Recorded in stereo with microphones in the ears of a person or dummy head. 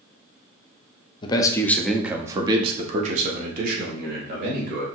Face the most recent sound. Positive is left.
turn(degrees=-70)  # may be behind; listen again after turning